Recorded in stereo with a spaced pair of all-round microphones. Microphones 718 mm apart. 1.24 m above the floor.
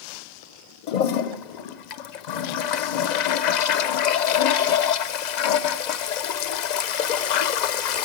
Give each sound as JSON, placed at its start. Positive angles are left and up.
{"t": 0.9, "sound": "a toilet flushing", "side_deg": 75, "distance_m": 0.6}